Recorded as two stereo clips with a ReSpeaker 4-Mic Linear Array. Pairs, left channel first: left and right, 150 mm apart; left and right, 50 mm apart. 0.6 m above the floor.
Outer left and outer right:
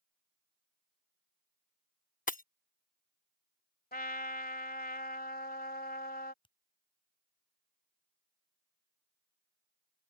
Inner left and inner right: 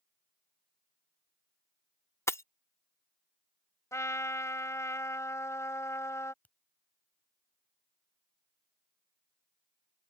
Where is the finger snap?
35° left (ahead or behind).